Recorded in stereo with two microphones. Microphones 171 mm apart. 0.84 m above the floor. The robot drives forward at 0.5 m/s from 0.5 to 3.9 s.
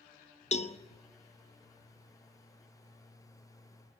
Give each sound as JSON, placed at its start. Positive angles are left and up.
{"t": 0.5, "sound": "a cowbell", "side_deg": 45, "distance_m": 0.7}